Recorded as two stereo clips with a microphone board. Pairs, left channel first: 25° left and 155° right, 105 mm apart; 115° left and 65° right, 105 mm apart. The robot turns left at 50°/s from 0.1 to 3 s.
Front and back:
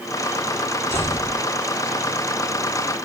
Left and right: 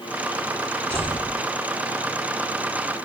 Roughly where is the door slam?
Ahead right.